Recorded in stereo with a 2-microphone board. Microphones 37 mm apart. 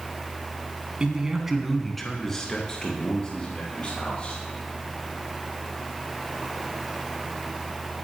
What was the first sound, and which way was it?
A man speaking, 25° right (ahead or behind).